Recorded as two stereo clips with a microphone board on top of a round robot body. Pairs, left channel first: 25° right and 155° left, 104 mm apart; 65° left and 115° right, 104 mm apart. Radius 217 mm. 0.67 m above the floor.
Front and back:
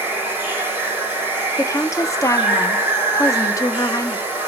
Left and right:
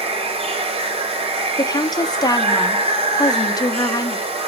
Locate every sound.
0.0 s running water: 130° right, 1.1 m
1.6 s a woman speaking: 30° left, 0.7 m